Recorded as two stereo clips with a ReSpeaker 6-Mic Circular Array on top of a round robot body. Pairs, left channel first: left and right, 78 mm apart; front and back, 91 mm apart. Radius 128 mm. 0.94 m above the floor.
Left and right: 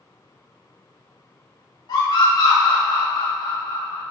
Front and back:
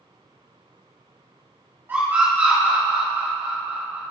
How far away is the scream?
About 3 m.